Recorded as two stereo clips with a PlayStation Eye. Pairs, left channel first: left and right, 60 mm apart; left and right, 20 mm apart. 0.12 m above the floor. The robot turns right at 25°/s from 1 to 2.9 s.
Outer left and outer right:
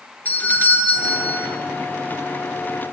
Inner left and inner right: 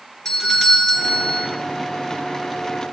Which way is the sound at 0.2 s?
30° left (ahead or behind).